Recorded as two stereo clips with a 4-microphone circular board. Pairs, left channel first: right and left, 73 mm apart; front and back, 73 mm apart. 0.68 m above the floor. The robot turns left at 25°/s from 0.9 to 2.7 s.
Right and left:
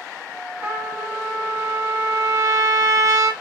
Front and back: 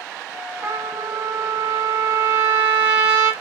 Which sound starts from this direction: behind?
A trumpet, at 0.6 s.